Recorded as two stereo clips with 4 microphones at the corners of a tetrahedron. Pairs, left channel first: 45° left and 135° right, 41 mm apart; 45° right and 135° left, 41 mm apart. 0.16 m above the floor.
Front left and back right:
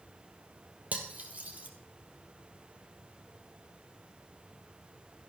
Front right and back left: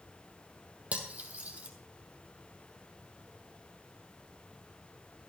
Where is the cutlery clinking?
Straight behind, 2.5 m.